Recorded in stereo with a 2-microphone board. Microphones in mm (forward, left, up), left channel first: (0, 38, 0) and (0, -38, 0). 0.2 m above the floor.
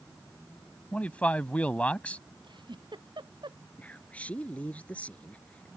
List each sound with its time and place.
0.9 s a man speaking: 20° left (ahead or behind)
2.4 s a giggle: 90° right
3.8 s a man speaking: 20° left (ahead or behind)